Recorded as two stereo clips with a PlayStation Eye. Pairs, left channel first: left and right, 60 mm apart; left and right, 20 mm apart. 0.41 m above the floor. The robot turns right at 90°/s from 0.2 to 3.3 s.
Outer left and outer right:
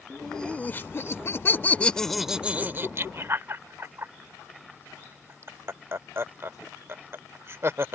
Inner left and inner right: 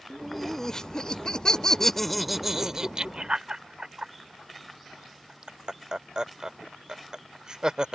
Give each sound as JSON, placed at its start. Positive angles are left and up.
{"t": 0.1, "sound": "laughter", "side_deg": 0}